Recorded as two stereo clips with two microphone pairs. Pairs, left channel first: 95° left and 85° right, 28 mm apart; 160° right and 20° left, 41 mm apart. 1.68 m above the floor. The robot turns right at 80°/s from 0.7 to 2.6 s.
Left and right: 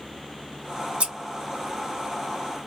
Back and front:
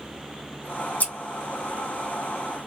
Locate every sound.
1.0 s scissors: 120° right, 0.7 m; by 1.1 s 115° right, 0.7 m